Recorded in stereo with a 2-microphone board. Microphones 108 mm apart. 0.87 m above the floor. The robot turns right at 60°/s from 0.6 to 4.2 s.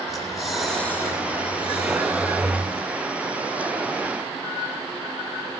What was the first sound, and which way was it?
Breathing, straight ahead.